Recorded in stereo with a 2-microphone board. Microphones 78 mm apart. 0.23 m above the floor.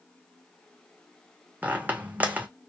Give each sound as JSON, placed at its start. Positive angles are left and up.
{"t": 1.6, "sound": "a squeak", "side_deg": -20, "distance_m": 0.5}